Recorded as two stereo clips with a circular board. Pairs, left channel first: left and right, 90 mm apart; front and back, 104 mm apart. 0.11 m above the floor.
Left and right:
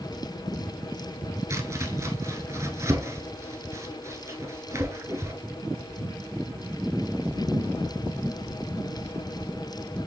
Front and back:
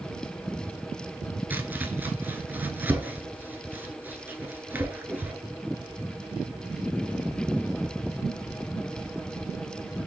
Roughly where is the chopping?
Behind right.